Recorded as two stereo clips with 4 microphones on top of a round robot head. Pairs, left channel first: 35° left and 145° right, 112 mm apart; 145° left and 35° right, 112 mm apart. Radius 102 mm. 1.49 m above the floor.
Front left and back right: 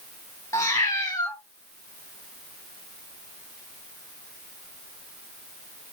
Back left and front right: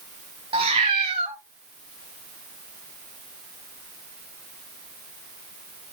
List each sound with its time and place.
0.5 s a cat meowing: 20° right, 1.2 m